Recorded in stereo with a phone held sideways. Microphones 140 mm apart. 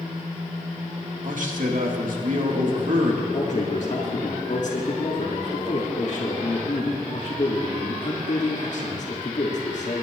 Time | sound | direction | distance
1.2 | a man speaking | 65° right (ahead or behind) | 2.0 m
3.3 | a man speaking | 55° left (ahead or behind) | 2.5 m